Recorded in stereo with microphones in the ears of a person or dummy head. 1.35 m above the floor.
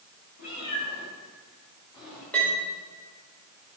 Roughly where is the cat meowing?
Left.